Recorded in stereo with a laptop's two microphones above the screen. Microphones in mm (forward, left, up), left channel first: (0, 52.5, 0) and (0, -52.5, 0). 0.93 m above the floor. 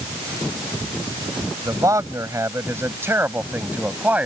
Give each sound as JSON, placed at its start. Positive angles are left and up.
{"t": 1.6, "sound": "a man speaking", "side_deg": -35}